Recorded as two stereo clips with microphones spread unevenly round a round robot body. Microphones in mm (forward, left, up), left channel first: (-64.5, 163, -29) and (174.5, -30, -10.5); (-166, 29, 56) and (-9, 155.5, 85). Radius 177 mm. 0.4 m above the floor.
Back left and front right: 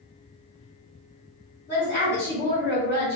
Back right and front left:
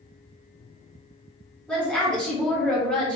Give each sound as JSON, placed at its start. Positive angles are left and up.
{"t": 1.7, "sound": "a woman speaking", "azimuth_deg": 150, "distance_m": 1.4}